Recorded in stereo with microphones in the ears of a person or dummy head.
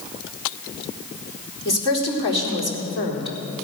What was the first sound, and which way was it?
A woman speaking, 30° left (ahead or behind).